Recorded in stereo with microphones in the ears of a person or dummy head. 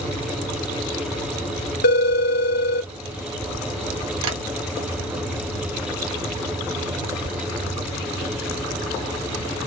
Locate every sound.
1.8 s a phone ringing: 55° left (ahead or behind), 0.8 m
4.2 s tapping: 75° right (ahead or behind), 1.9 m